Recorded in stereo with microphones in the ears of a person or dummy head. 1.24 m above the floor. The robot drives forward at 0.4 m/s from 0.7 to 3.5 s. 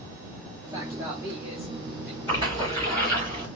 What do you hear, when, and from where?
0.6 s a man speaking: 20° right (ahead or behind), 0.7 m; by 2.2 s 10° right (ahead or behind), 1.2 m
2.3 s a splash: 15° left (ahead or behind), 2 m